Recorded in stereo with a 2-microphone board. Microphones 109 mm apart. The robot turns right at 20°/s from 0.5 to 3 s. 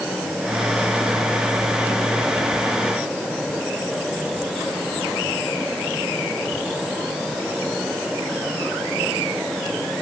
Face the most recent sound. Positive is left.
No sound to turn to.